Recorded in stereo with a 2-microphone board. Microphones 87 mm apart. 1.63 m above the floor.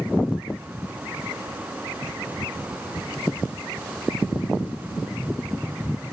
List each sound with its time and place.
3.0 s a thud: 70° left (ahead or behind)